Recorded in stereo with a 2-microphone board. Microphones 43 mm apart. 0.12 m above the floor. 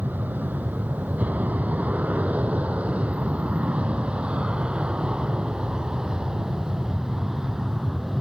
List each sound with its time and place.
0.0 s an aircraft: 40° right (ahead or behind); by 8.2 s 10° right (ahead or behind)